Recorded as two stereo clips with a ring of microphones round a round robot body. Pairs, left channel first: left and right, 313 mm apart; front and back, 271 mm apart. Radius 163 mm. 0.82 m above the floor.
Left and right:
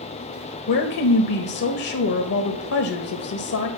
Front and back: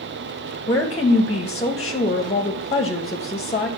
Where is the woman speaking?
65° left, 1.0 m.